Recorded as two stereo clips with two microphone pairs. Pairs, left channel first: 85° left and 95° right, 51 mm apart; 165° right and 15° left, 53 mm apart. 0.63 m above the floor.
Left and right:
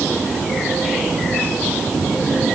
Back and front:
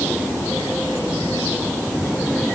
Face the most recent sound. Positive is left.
No sound to turn to.